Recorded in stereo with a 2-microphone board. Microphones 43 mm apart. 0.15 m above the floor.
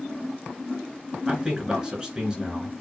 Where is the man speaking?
20° right (ahead or behind), 2 m.